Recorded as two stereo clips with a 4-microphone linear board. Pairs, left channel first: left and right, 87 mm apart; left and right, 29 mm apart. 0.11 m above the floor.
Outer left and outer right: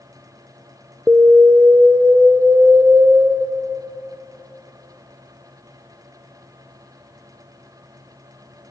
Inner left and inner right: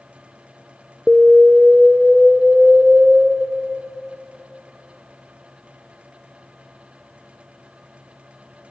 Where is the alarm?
20° right (ahead or behind), 0.9 m.